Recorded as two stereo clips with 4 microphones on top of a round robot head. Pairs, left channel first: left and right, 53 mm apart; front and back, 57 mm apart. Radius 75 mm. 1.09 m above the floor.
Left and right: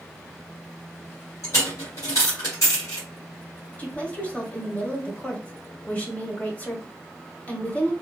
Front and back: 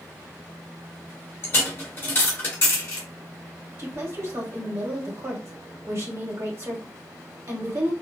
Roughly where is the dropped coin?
Ahead left.